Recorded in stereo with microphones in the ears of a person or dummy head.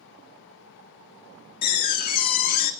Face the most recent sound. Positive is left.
turn(degrees=50)  # may be behind; listen again after turning